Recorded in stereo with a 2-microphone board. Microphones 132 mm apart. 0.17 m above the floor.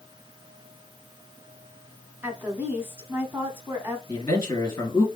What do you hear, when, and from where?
2.2 s a woman speaking: 15° right (ahead or behind), 1.2 m
4.1 s a man speaking: 25° left (ahead or behind), 3 m